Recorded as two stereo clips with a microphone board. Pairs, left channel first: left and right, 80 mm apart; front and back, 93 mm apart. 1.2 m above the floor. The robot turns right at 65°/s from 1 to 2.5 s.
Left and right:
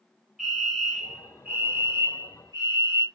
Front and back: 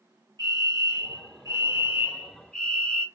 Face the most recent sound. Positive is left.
turn(degrees=-80)